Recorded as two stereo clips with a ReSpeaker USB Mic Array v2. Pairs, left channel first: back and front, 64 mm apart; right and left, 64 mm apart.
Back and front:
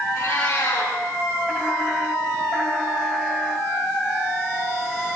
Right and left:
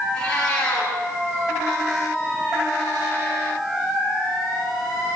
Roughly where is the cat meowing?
Behind.